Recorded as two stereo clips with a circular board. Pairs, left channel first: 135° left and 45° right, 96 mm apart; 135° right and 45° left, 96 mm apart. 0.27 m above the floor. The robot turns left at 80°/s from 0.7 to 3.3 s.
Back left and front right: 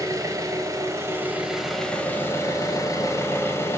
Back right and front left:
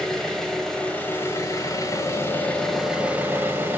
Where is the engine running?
55° right, 0.9 m; by 3.8 s 95° left, 0.9 m.